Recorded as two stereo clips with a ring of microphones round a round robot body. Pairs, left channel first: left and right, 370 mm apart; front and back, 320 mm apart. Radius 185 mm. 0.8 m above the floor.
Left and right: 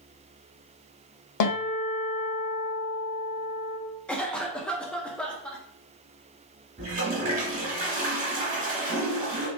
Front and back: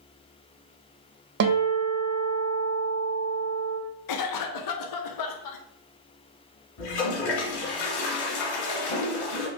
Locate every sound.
1.4 s a guitar: 135° left, 1.4 m
4.1 s a cough: 5° left, 0.9 m
6.8 s a toilet flushing: 20° right, 2.0 m